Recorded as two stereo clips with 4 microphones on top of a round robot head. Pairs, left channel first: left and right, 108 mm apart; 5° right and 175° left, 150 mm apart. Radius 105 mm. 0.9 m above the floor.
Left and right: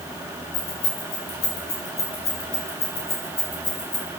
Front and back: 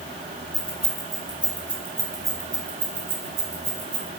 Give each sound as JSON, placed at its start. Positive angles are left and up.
{"t": 0.5, "sound": "keys jangling", "azimuth_deg": 80, "distance_m": 4.0}